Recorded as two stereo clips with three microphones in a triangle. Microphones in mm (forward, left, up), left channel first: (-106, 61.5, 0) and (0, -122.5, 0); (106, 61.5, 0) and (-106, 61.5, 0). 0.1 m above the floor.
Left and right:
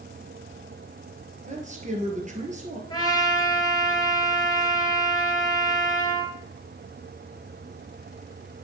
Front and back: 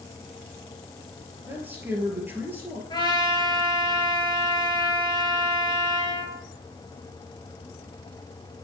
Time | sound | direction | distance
1.5 | a man speaking | 100° right | 2 m
2.9 | a trumpet | 60° left | 1.5 m